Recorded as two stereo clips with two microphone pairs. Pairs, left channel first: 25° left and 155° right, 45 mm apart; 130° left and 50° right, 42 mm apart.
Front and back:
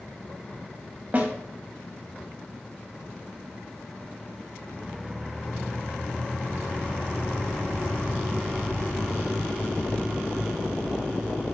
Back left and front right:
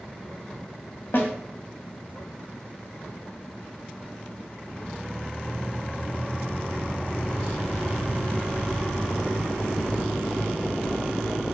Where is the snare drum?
155° left, 1.1 m.